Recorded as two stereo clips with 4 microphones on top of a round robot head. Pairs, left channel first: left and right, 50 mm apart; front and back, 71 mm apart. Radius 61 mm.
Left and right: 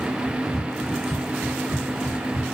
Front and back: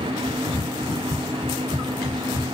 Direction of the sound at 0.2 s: 75° left.